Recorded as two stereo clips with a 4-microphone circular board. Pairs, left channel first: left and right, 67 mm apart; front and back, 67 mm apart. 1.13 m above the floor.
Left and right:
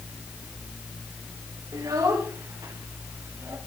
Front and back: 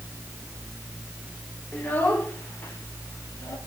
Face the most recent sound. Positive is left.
turn(degrees=-50)